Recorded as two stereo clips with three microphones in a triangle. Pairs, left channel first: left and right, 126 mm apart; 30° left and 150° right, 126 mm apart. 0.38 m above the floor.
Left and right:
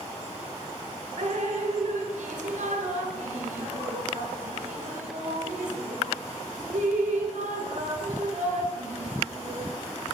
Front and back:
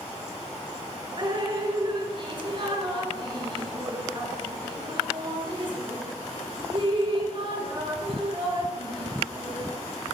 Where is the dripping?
100° right, 2.5 m.